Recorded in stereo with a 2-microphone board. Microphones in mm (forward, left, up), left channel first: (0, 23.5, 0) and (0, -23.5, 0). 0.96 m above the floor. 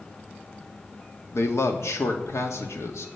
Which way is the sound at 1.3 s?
75° left (ahead or behind).